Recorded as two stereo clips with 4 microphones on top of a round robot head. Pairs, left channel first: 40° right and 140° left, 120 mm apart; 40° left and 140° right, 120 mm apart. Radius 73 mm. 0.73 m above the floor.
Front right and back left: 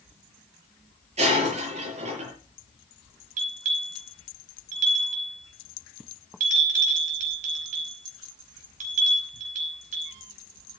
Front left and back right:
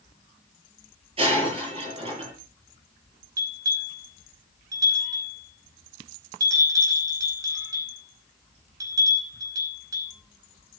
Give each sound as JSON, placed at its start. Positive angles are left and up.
{"t": 1.2, "sound": "breaking glass", "azimuth_deg": 175, "distance_m": 8.5}
{"t": 3.4, "sound": "a bell", "azimuth_deg": 160, "distance_m": 5.0}